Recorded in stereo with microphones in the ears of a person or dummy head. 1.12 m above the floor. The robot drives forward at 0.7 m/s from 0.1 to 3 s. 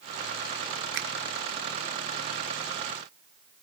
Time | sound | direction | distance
0.9 | a finger snap | 65° right (ahead or behind) | 1.1 m